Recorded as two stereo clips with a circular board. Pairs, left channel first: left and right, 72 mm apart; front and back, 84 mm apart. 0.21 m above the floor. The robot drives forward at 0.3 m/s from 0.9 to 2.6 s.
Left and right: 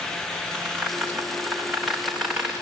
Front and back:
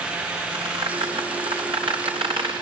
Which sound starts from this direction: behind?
A squeak, at 0.5 s.